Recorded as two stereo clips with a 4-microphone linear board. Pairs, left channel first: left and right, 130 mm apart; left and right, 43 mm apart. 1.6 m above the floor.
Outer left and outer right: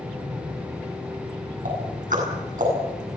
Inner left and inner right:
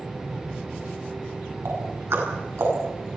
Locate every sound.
1.6 s ticking: 85° right, 8.5 m